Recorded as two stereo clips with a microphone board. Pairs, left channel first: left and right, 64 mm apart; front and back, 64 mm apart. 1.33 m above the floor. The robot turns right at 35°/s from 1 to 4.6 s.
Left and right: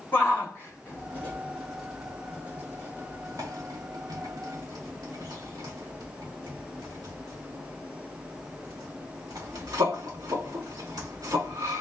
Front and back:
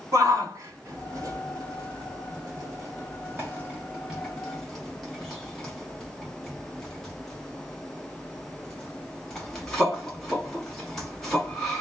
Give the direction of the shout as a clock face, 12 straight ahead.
7 o'clock.